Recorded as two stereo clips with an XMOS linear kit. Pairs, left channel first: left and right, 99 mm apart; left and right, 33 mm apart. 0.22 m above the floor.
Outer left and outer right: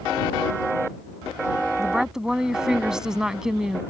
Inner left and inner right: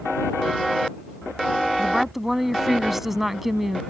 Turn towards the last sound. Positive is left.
turn(degrees=-10)  # may be behind; listen again after turning